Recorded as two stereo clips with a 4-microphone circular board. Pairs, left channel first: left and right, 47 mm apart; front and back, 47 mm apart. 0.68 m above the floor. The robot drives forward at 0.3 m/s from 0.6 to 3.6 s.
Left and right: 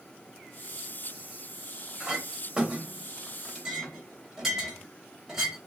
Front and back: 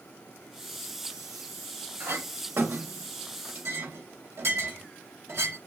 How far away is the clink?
About 0.9 m.